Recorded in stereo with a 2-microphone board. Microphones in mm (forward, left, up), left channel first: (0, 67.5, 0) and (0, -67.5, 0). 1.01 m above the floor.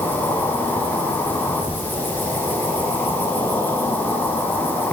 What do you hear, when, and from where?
0.0 s an insect: 15° left (ahead or behind), 3 m